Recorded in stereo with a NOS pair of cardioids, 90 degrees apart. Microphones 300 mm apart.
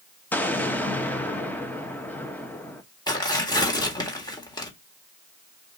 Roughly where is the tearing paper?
Ahead.